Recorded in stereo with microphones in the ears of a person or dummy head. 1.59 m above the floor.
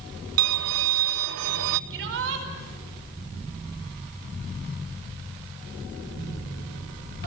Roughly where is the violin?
Right.